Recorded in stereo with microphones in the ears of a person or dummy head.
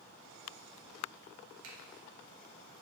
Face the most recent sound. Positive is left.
turn(degrees=-70)  # may be behind; listen again after turning